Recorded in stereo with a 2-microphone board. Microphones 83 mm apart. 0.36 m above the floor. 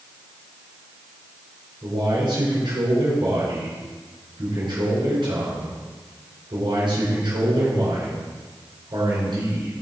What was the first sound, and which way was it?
A man speaking, 65° right (ahead or behind).